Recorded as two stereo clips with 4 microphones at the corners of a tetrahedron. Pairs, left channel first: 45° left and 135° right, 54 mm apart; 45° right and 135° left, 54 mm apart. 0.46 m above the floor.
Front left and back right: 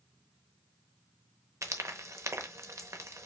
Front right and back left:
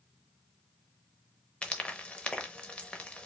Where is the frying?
115° right, 0.7 m.